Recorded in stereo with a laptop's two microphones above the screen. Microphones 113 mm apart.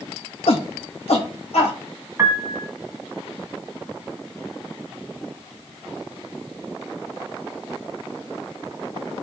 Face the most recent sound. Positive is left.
turn(degrees=-25)  # may be behind; listen again after turning